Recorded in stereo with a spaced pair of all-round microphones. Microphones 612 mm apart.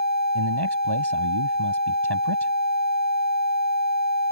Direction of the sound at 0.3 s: 40° right (ahead or behind).